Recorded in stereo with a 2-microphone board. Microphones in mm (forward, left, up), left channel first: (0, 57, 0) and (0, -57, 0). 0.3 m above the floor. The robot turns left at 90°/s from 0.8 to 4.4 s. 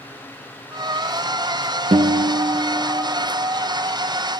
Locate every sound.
1.9 s a guitar: 85° right, 0.5 m; by 3.1 s 170° left, 0.5 m